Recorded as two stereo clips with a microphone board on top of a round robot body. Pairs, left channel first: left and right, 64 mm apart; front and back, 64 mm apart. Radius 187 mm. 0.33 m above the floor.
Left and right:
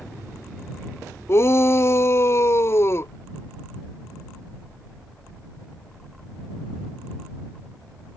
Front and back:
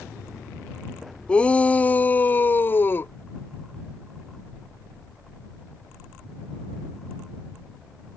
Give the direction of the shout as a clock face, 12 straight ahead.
10 o'clock.